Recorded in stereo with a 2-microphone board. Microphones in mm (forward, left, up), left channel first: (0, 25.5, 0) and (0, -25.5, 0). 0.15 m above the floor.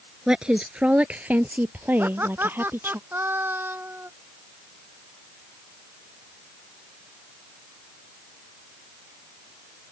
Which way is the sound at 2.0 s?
45° right (ahead or behind).